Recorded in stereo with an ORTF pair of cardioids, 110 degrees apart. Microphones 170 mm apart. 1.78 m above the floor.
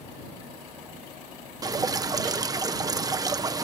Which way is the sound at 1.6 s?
20° right.